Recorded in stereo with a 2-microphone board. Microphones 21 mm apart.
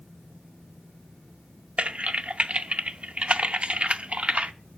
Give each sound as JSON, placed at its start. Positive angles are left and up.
{"t": 1.8, "sound": "typing on a keyboard", "side_deg": -60, "distance_m": 0.6}